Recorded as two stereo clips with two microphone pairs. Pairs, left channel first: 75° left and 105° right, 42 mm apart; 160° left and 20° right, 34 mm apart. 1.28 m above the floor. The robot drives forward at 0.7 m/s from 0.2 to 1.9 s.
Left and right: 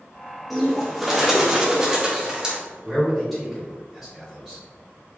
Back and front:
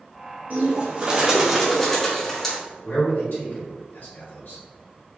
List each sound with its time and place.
0.5 s a bird: 20° right, 1.1 m; by 2.6 s 145° right, 0.9 m
2.8 s a man speaking: 170° left, 1.8 m